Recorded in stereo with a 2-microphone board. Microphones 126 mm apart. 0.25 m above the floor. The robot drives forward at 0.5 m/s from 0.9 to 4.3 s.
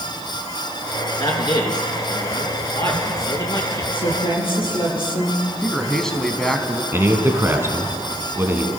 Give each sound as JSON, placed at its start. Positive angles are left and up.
{"t": 1.2, "sound": "a man speaking", "side_deg": 35, "distance_m": 3.0}
{"t": 3.9, "sound": "a woman speaking", "side_deg": 45, "distance_m": 6.5}
{"t": 5.6, "sound": "a man speaking", "side_deg": 5, "distance_m": 2.0}
{"t": 6.9, "sound": "a man speaking", "side_deg": -20, "distance_m": 2.5}